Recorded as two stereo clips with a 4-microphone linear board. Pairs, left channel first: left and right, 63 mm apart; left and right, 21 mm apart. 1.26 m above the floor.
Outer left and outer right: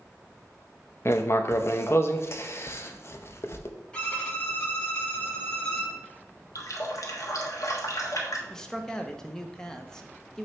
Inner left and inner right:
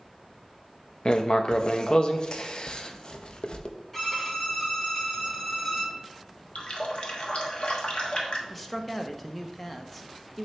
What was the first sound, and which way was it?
Writing, 40° left (ahead or behind).